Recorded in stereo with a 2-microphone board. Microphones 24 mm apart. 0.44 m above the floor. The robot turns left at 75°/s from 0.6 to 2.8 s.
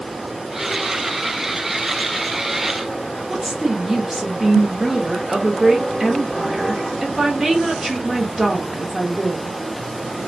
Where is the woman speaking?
20° right (ahead or behind), 0.7 m.